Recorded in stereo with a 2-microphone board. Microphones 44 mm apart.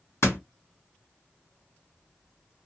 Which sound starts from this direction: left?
A door slam, at 0.2 s.